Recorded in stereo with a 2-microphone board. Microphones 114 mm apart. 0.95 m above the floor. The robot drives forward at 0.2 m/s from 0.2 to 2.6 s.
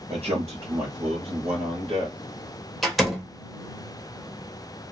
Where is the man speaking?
60° right (ahead or behind), 1.2 m; by 2.2 s 50° right (ahead or behind), 1.3 m.